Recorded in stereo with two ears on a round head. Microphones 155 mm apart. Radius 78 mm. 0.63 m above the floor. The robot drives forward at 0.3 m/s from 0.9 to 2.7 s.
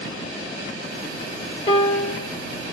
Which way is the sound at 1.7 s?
30° left (ahead or behind).